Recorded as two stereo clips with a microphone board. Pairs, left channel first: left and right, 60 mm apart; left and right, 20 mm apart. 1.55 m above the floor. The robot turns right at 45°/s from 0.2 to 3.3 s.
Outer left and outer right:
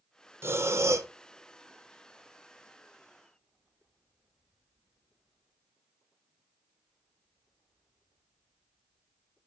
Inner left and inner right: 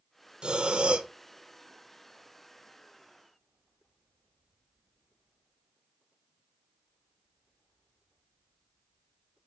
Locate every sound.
0.4 s breathing: 45° right (ahead or behind), 0.8 m; by 1.1 s 50° right (ahead or behind), 0.8 m